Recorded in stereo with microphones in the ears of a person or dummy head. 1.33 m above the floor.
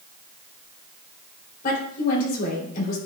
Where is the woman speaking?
50° left (ahead or behind), 3.5 m.